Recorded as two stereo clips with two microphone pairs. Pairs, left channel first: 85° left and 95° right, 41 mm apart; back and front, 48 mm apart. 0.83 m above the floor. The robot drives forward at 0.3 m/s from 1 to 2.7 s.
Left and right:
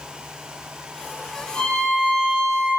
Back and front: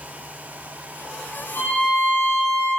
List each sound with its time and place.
1.6 s a violin: 150° left, 0.7 m; by 2.7 s 160° left, 1.0 m